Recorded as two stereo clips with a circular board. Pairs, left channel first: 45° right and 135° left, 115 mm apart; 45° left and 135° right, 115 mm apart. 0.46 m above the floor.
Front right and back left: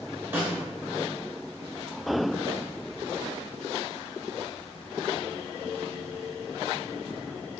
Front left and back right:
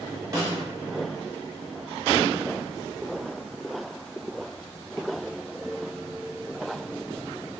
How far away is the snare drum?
About 0.9 m.